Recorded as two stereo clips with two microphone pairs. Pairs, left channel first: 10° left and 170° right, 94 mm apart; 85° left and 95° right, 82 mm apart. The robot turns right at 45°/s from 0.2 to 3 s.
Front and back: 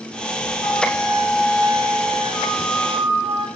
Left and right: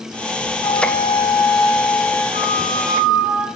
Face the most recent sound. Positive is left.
turn(degrees=-170)